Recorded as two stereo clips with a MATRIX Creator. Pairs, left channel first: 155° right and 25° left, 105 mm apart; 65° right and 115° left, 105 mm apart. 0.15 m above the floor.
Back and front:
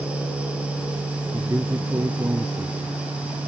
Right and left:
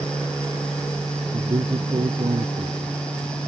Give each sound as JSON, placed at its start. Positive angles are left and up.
{"t": 1.3, "sound": "a man speaking", "azimuth_deg": 85}